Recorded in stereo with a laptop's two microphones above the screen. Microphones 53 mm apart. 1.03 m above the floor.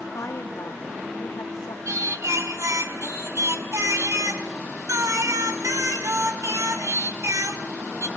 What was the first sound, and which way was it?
A woman speaking, 80° left.